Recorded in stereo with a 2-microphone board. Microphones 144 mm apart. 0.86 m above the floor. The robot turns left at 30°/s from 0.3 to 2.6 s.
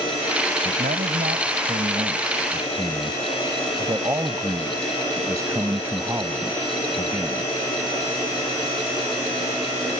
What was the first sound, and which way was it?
A man speaking, 95° right.